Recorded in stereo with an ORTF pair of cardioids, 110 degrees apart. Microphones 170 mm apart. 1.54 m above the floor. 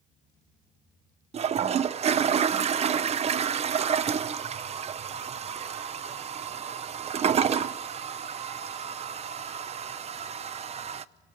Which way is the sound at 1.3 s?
35° right.